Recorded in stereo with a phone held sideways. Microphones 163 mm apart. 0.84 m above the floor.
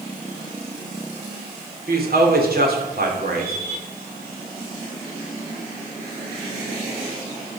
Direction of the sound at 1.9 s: 70° right (ahead or behind).